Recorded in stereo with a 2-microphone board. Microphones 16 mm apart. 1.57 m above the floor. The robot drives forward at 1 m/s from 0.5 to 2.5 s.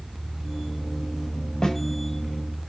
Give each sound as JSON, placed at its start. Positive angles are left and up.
{"t": 1.6, "sound": "a snare drum", "side_deg": 50, "distance_m": 8.5}